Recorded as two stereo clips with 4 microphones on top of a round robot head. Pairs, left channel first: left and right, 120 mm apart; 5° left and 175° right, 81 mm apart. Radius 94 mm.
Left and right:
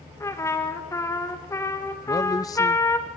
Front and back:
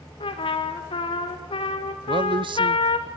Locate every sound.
0.2 s a trumpet: 20° left, 3 m
2.1 s a man speaking: 155° left, 0.6 m